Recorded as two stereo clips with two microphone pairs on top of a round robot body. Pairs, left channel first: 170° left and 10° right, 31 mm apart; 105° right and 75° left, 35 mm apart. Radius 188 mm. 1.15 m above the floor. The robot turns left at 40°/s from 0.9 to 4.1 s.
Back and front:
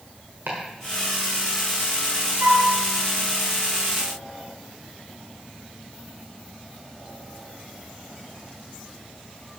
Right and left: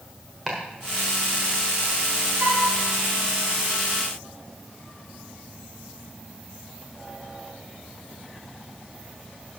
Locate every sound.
0.5 s chopping: straight ahead, 1.3 m
2.4 s a flute: 20° left, 0.9 m; by 2.7 s 10° left, 0.9 m